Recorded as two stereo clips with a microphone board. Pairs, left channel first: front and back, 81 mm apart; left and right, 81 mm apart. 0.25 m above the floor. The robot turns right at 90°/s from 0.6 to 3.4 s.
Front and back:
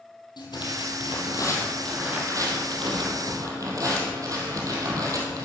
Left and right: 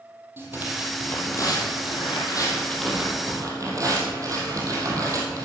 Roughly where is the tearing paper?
Ahead right.